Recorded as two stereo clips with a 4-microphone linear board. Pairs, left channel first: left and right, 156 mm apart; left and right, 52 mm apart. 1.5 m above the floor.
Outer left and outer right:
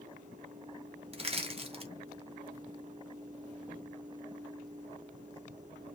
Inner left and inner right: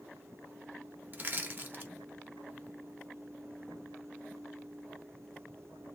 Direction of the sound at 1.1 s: 40° right (ahead or behind).